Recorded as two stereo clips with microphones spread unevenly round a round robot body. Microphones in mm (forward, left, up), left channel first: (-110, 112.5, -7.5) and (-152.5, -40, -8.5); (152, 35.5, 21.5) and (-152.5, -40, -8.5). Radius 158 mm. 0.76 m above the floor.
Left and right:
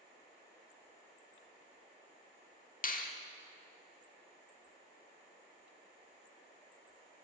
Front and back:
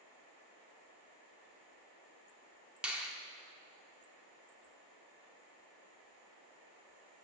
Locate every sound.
2.8 s a finger snap: 110° left, 1.5 m